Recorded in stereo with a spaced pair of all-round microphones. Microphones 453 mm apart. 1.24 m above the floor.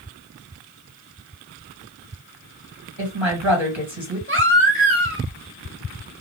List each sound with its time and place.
3.0 s a woman speaking: 70° right (ahead or behind), 2.0 m
4.3 s a baby crying: 25° right (ahead or behind), 1.3 m